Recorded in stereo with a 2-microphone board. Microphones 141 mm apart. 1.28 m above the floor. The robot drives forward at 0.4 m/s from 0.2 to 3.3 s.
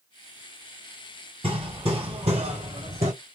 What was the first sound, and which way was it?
Hammering, 40° right (ahead or behind).